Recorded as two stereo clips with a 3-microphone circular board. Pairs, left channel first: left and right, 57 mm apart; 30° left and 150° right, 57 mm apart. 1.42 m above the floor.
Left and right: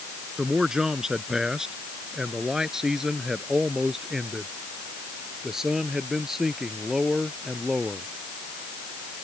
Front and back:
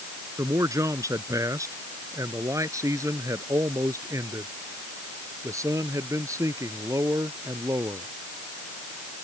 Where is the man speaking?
170° right; by 8.1 s 175° right.